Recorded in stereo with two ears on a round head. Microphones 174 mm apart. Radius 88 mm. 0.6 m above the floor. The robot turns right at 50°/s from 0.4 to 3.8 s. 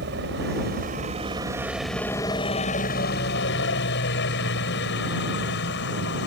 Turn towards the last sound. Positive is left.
turn(degrees=95)